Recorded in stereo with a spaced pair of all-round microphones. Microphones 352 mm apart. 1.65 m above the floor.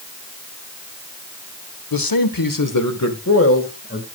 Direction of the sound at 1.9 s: 80° left.